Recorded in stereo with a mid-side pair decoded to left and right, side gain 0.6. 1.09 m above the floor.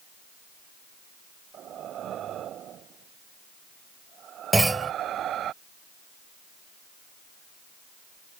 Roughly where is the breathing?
Ahead right.